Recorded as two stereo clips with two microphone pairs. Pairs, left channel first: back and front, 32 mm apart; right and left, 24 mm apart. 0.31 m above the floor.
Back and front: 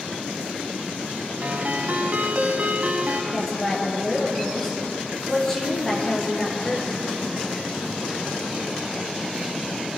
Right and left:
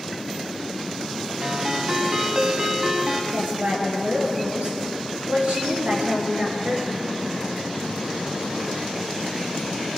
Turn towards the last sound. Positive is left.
turn(degrees=100)